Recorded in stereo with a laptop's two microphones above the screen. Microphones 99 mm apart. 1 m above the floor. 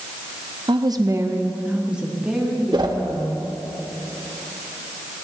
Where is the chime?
No chime in this recording.